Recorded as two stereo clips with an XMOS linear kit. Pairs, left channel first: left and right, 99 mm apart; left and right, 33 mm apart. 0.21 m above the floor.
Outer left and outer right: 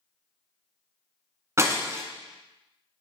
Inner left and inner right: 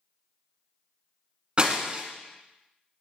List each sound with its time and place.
1.6 s breaking glass: 30° right (ahead or behind), 1.1 m